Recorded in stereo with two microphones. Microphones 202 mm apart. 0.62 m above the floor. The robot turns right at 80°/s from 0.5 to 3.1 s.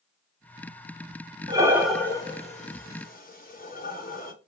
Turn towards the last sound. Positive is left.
turn(degrees=45)  # may be behind; listen again after turning